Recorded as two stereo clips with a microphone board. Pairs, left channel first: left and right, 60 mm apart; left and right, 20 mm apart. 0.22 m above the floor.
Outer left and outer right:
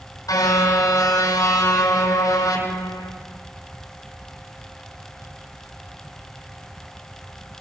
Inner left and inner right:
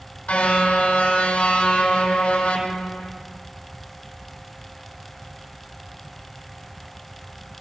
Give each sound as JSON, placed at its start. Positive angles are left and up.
{"t": 0.3, "sound": "a car horn", "side_deg": 75, "distance_m": 5.0}